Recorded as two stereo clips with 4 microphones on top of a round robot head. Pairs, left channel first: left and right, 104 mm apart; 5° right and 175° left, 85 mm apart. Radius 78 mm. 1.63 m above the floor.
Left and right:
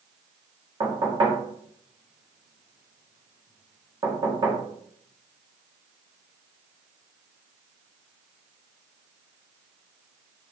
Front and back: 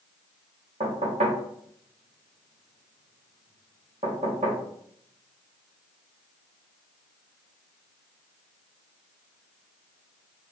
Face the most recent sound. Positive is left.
turn(degrees=-145)